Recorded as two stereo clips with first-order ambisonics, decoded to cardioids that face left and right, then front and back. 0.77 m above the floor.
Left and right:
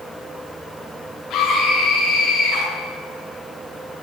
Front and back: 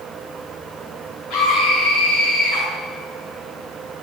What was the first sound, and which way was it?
A scream, 50° left.